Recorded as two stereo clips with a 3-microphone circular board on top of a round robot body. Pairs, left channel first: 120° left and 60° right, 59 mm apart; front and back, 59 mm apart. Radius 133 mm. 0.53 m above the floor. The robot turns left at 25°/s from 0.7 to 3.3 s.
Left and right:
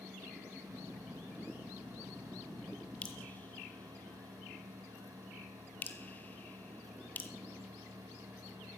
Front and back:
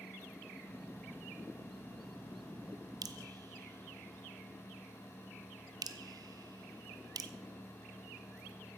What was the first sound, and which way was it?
Dripping, 170° right.